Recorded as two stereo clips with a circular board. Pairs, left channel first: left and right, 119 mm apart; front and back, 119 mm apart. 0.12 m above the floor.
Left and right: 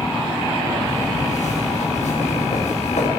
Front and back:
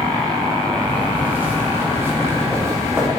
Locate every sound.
0.8 s footsteps: 105° left, 8 m; by 3.1 s 115° left, 8.5 m